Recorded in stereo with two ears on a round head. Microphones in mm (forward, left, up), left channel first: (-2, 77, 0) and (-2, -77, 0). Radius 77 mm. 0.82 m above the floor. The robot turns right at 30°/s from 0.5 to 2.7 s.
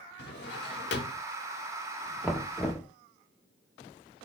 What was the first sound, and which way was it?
A drawer, 65° left (ahead or behind).